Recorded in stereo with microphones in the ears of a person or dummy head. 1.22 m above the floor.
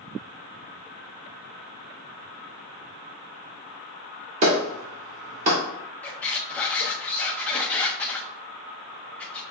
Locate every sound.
4.4 s a clap: 45° right (ahead or behind), 2 m
6.0 s a squeak: 10° left (ahead or behind), 0.5 m